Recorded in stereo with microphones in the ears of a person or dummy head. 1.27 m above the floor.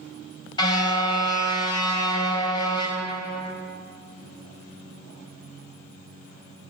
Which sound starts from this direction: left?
A car horn, at 0.6 s.